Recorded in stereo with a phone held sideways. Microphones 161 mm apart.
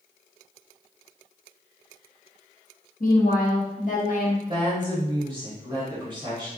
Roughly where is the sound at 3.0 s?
Left.